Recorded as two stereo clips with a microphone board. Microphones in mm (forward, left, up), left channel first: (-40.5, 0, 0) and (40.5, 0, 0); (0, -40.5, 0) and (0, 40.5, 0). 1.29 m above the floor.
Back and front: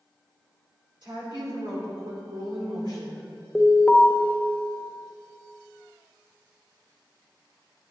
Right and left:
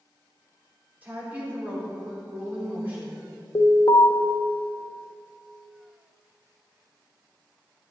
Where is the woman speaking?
20° left, 4 m.